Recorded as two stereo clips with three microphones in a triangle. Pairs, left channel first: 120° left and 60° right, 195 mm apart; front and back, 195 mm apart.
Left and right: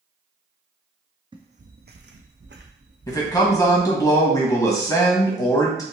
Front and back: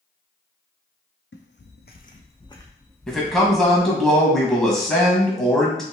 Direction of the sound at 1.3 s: 5° left.